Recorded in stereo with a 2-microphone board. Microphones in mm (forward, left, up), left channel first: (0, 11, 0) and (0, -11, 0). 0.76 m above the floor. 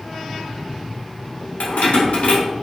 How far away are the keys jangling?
About 1.2 m.